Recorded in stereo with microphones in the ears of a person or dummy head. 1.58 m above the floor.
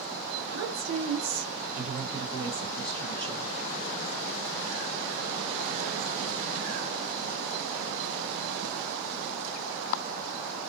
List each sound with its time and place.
0.5 s a woman speaking: 75° right (ahead or behind), 1.2 m; by 3.5 s 20° left (ahead or behind), 1.2 m